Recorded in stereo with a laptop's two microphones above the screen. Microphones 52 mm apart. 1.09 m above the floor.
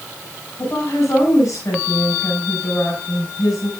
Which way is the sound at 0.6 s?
75° left (ahead or behind).